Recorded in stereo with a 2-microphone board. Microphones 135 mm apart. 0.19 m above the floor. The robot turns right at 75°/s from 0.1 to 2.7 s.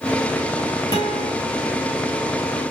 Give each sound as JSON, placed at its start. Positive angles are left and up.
{"t": 0.9, "sound": "a guitar", "side_deg": 40, "distance_m": 3.5}